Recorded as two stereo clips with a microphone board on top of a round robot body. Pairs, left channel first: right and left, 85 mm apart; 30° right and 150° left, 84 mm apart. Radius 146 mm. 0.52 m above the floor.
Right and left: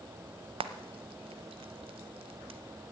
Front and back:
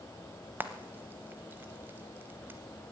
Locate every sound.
0.6 s frying: 80° left, 0.7 m